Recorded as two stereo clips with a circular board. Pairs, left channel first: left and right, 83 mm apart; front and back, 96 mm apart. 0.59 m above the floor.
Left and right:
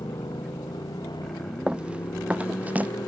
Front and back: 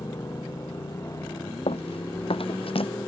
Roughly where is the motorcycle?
Ahead left.